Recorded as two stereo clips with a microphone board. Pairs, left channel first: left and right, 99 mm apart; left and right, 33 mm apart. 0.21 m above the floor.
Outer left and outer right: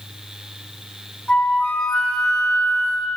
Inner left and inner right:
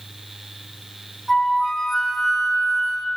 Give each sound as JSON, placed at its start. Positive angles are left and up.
{"t": 1.3, "sound": "a flute", "side_deg": 10, "distance_m": 2.0}